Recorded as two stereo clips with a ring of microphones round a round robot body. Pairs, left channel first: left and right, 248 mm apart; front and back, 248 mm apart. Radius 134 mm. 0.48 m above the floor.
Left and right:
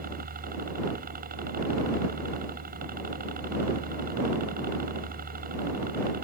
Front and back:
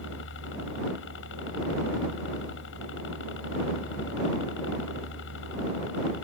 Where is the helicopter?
40° right.